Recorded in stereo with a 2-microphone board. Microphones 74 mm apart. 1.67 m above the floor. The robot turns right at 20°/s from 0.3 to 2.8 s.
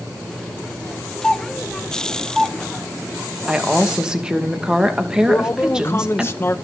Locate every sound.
1.2 s a doorbell: 10° left (ahead or behind), 2.5 m; by 2.6 s 15° right (ahead or behind), 2.5 m
3.5 s a woman speaking: 10° right (ahead or behind), 2.5 m
5.3 s a man speaking: 35° left (ahead or behind), 1.0 m